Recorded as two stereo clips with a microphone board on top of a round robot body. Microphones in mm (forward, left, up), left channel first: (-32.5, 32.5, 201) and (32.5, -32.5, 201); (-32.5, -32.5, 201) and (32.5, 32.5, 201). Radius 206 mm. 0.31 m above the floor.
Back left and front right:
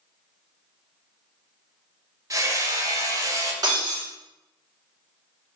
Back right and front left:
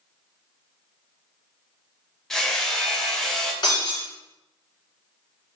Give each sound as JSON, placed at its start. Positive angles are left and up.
{"t": 2.3, "sound": "hammering", "azimuth_deg": -55, "distance_m": 1.0}
{"t": 3.6, "sound": "breaking glass", "azimuth_deg": -95, "distance_m": 1.6}